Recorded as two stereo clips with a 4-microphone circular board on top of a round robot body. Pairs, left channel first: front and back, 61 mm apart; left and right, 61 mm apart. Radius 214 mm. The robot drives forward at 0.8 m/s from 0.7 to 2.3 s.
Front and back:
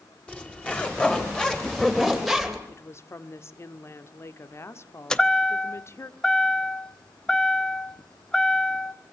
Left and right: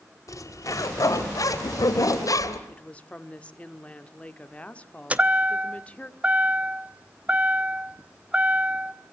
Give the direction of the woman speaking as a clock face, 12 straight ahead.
11 o'clock.